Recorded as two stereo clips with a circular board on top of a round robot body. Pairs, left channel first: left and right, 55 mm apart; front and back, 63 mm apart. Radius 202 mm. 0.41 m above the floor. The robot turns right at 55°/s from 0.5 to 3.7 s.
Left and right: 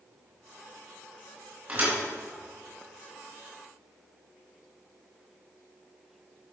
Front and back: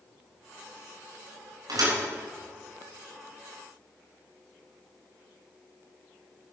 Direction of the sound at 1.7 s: 155° right.